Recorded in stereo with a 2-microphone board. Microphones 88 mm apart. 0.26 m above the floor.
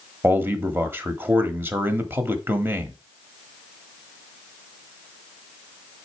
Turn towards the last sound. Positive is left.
turn(degrees=-25)  # may be behind; listen again after turning